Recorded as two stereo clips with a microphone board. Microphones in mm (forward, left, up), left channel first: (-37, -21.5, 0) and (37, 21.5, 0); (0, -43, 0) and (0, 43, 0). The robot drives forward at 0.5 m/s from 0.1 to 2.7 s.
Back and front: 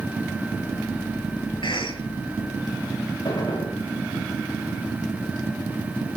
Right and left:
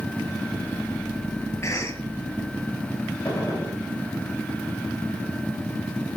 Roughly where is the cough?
Behind right.